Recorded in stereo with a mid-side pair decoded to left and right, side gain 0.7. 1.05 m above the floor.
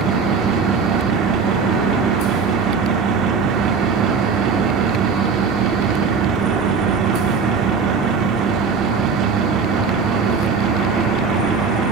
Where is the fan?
55° right, 1.2 m.